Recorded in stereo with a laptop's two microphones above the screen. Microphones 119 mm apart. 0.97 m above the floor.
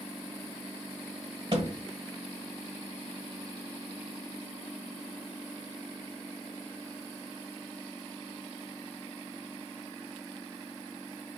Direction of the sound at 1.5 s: 50° right (ahead or behind).